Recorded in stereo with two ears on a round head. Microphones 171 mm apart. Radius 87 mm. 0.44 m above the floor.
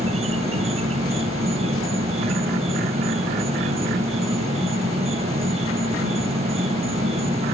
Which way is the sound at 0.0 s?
30° right (ahead or behind).